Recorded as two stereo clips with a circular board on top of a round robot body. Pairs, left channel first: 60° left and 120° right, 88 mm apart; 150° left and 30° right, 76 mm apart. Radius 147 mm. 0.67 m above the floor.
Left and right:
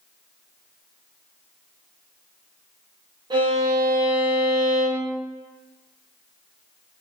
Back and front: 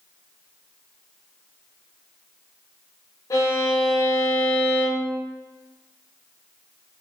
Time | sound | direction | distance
3.3 | a violin | 160° right | 0.7 m